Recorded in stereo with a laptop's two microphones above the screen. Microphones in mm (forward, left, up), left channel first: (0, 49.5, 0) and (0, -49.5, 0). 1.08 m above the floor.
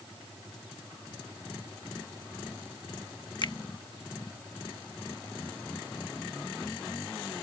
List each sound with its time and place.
3.4 s a finger snap: 50° left (ahead or behind)